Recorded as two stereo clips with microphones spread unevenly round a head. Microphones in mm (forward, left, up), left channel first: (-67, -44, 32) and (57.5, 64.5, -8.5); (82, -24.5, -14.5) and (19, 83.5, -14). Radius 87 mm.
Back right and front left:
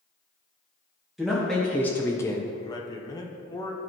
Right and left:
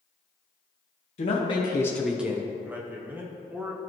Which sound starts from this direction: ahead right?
A man speaking, at 1.2 s.